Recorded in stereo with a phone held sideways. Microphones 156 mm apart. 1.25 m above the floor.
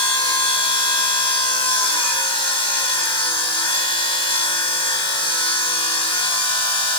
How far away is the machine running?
About 6 m.